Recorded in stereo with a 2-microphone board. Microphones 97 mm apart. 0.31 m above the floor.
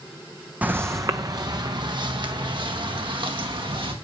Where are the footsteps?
20° right (ahead or behind), 0.8 m; by 3.9 s 65° right (ahead or behind), 4 m.